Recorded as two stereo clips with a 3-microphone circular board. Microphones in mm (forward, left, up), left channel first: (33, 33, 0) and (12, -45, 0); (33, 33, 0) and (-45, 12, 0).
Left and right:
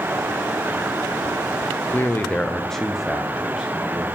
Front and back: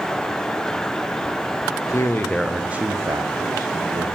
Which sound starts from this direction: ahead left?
A man speaking, at 1.9 s.